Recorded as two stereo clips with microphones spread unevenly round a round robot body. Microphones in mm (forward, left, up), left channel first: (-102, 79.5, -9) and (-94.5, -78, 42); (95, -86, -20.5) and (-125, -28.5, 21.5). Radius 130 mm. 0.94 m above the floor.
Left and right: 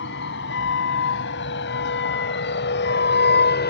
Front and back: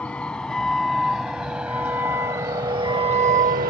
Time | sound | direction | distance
0.0 | a vehicle | 75° left | ?